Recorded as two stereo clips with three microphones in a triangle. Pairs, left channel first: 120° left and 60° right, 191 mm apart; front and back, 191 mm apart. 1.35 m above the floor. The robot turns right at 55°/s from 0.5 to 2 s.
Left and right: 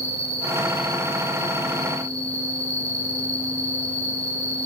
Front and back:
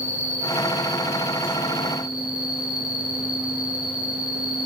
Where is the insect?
15° left, 1.7 m; by 4.7 s 95° left, 1.7 m.